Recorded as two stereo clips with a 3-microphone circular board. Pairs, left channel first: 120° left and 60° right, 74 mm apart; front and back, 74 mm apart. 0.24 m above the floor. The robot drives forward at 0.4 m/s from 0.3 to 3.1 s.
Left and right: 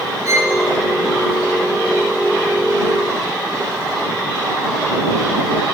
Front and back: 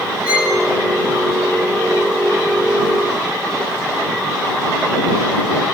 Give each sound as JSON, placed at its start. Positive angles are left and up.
{"t": 0.2, "sound": "a violin", "azimuth_deg": -105, "distance_m": 3.0}